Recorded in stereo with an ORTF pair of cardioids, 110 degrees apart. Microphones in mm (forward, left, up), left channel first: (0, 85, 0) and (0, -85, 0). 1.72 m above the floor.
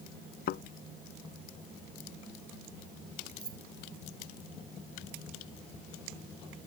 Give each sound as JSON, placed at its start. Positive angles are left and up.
{"t": 0.5, "sound": "a thud", "azimuth_deg": 65}
{"t": 3.4, "sound": "keys jangling", "azimuth_deg": -25}